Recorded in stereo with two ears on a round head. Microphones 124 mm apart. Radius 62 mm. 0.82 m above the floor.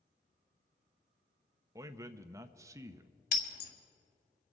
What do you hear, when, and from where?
1.8 s a man speaking: 20° right (ahead or behind), 0.6 m
3.3 s breaking glass: 70° left (ahead or behind), 1.5 m